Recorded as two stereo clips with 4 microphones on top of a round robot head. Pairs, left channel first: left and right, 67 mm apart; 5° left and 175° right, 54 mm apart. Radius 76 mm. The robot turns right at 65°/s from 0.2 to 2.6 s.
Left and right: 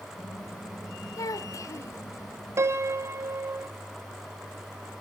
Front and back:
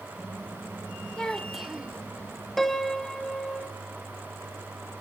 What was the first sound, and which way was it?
A child speaking, 75° left.